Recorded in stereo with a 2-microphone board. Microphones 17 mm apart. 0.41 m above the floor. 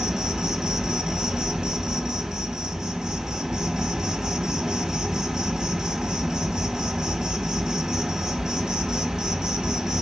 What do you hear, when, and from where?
0.0 s an insect: 40° right (ahead or behind), 1.0 m